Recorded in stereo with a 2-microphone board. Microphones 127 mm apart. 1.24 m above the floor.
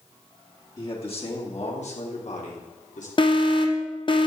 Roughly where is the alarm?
Left.